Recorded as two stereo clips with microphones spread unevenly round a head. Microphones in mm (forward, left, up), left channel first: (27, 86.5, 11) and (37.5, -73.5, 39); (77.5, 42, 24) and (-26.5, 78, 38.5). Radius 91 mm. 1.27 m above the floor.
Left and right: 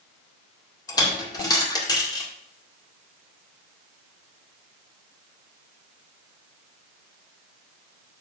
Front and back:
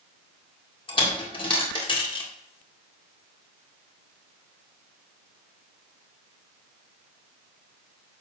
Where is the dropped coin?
25° left, 1.9 m.